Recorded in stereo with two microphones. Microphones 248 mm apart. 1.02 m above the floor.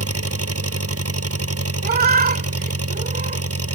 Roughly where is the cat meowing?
Right.